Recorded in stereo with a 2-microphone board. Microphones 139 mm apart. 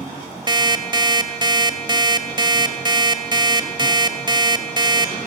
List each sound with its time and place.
0.5 s an alarm clock: 30° right (ahead or behind), 1.4 m